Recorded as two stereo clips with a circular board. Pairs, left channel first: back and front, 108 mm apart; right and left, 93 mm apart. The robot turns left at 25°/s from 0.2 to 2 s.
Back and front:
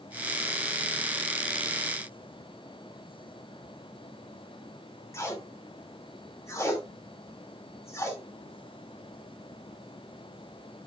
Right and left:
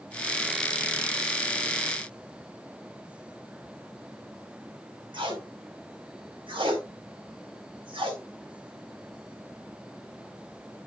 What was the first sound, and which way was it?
Tape being pulled, 115° left.